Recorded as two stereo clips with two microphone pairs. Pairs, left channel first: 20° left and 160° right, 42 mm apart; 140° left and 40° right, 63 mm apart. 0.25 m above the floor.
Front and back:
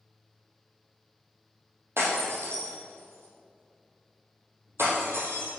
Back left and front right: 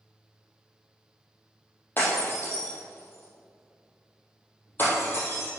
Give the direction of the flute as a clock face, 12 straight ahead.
No flute in this recording.